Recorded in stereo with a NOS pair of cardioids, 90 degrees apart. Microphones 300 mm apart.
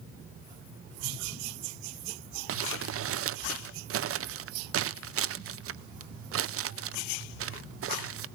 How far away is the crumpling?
About 0.6 m.